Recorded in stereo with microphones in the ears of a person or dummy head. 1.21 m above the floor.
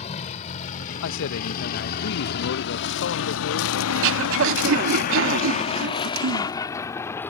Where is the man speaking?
65° left (ahead or behind).